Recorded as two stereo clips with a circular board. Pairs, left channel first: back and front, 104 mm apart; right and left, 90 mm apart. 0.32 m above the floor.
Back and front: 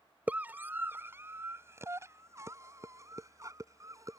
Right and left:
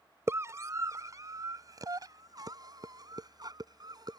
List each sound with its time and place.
0.3 s a scream: 65° left; by 4.2 s 55° left